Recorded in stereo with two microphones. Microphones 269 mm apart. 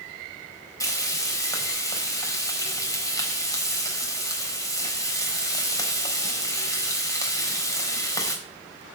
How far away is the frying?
About 4 m.